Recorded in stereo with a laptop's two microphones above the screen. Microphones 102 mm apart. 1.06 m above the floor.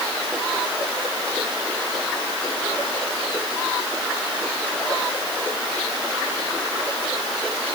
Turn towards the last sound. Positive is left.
No sound to turn to.